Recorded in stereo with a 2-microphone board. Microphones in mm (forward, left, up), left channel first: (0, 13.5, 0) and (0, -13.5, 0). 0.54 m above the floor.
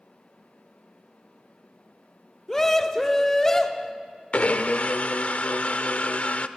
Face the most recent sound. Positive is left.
turn(degrees=55)  # may be behind; listen again after turning